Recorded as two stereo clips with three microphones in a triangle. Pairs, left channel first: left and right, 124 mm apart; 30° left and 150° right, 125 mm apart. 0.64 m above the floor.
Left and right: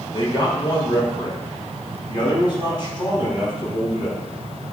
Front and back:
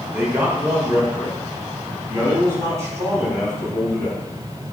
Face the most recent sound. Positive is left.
turn(degrees=145)